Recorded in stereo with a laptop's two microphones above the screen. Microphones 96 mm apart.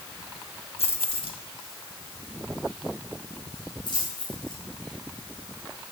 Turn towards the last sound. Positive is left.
turn(degrees=50)  # may be behind; listen again after turning